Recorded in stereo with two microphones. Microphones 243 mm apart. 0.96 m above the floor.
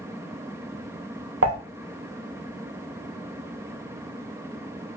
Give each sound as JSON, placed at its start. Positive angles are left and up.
{"t": 1.4, "sound": "dishes clattering", "side_deg": -65, "distance_m": 0.7}